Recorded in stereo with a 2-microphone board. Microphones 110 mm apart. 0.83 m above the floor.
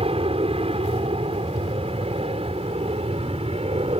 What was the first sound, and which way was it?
An aircraft, 60° right (ahead or behind).